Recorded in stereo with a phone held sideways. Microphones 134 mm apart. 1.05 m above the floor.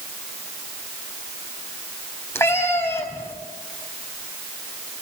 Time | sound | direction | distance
2.4 | a cat meowing | 20° left (ahead or behind) | 3.5 m